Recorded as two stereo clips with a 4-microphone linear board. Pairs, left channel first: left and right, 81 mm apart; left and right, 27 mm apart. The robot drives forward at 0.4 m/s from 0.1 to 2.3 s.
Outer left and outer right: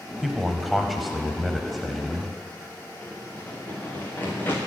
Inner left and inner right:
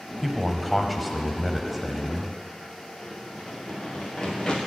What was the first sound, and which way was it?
A man speaking, centre (ahead or behind).